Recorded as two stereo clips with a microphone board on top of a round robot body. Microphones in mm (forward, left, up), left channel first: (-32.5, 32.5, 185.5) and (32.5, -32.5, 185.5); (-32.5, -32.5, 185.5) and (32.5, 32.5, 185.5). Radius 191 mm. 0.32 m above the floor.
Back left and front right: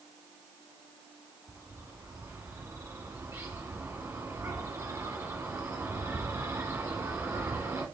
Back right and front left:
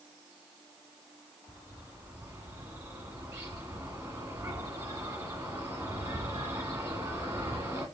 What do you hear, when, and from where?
1.5 s a bird: straight ahead, 1.8 m